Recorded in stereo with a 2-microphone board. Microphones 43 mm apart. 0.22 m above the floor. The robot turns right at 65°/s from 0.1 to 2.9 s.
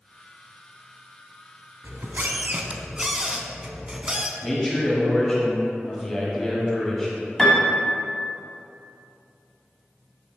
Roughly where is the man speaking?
Centre.